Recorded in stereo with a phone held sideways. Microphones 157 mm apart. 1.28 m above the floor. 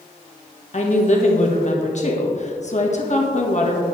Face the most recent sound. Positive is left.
turn(degrees=50)  # may be behind; listen again after turning